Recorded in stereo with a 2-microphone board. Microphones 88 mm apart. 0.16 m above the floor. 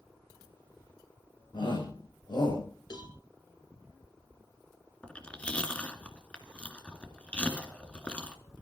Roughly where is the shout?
Left.